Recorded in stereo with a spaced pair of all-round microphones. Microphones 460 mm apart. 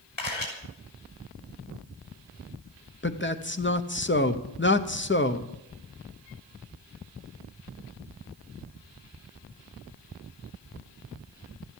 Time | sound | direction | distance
0.2 | a camera shutter | 85° left | 6 m
3.0 | a man speaking | 25° left (ahead or behind) | 0.9 m